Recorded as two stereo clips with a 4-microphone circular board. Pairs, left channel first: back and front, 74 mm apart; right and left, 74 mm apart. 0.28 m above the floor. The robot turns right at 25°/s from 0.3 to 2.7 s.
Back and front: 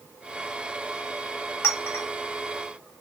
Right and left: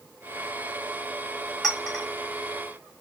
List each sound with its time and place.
1.6 s a clink: 170° right, 1.0 m; by 2.0 s 160° right, 1.0 m